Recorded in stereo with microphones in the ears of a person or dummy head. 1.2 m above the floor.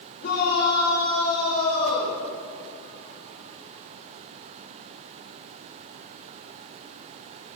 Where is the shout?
45° left (ahead or behind), 5 m; by 2.2 s 40° left (ahead or behind), 7.5 m.